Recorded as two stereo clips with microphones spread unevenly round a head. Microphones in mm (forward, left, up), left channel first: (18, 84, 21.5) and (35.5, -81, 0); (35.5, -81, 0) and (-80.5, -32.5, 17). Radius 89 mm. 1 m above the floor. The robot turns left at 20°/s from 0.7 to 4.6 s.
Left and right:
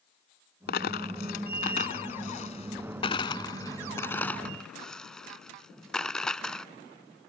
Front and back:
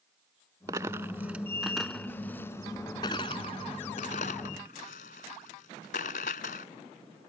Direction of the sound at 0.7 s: 95° left.